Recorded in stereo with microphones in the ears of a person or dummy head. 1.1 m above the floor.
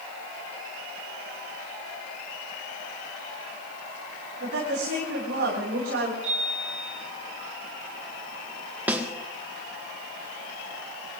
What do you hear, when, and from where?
4.4 s a woman speaking: 70° right (ahead or behind), 9.5 m
6.2 s a chime: 35° right (ahead or behind), 9.5 m
8.9 s a snare drum: 10° right (ahead or behind), 1.3 m